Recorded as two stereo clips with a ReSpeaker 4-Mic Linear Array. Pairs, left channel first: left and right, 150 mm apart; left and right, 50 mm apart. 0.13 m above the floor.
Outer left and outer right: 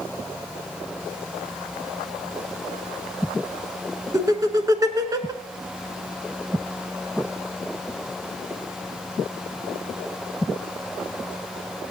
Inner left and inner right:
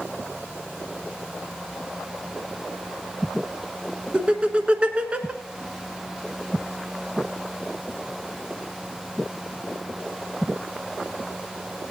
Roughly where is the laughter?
Right.